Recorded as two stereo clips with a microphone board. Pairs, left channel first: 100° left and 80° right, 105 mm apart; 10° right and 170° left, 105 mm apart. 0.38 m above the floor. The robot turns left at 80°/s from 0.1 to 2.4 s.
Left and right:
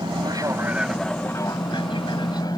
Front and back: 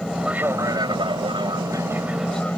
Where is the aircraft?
95° right; by 2.6 s 65° left.